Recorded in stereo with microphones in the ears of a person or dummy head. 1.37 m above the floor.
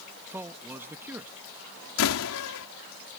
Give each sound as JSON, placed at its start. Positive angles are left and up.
{"t": 0.3, "sound": "a man speaking", "side_deg": -10}
{"t": 2.0, "sound": "a door slam", "side_deg": 70}